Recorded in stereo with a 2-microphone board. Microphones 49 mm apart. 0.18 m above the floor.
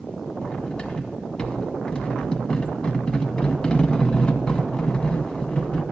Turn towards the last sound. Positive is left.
turn(degrees=20)  # may be behind; listen again after turning